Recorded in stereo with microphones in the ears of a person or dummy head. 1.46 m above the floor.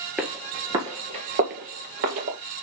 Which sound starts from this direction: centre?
Footsteps, at 0.2 s.